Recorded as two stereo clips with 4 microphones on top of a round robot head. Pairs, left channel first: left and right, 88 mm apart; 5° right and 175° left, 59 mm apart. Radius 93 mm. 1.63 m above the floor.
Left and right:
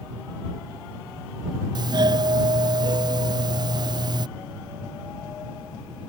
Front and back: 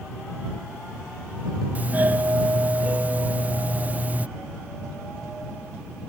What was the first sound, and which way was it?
A doorbell, 120° right.